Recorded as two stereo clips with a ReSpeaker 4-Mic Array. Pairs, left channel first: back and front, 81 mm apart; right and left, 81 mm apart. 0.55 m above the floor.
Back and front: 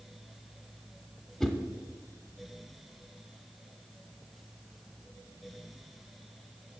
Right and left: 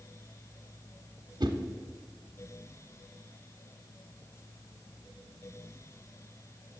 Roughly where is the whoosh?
Left.